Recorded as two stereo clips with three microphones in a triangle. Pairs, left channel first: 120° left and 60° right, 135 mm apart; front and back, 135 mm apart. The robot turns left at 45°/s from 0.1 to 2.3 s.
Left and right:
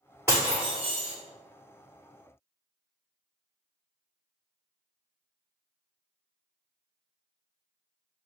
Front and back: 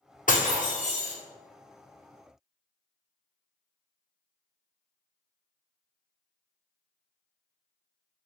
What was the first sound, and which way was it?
Breaking glass, 10° left.